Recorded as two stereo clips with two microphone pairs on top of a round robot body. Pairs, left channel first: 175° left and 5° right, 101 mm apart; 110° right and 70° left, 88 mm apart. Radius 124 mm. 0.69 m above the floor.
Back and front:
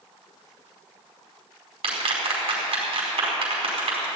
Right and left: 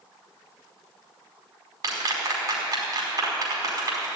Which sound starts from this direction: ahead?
A clap, at 1.8 s.